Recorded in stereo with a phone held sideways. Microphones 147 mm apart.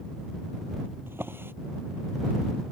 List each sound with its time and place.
1.1 s a drawer: 15° right (ahead or behind)